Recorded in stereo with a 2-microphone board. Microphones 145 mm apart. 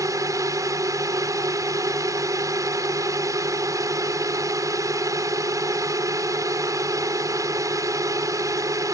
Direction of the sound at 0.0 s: 20° right (ahead or behind).